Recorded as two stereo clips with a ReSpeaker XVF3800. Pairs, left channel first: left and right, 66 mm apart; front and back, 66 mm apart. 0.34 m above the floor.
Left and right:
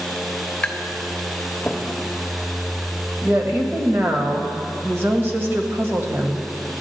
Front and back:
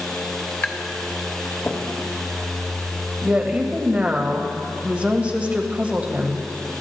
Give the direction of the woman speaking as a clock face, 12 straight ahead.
4 o'clock.